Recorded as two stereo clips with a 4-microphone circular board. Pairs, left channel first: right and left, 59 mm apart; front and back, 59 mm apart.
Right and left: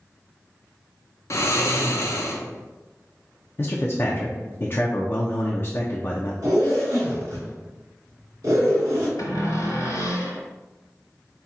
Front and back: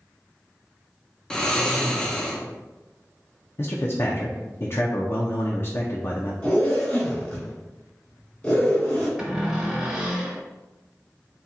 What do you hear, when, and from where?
1.3 s snoring: 75° right, 0.7 m
3.6 s a man speaking: 40° right, 0.5 m
6.4 s a zipper: 70° left, 1.9 m
9.2 s a cupboard door: 100° right, 1.4 m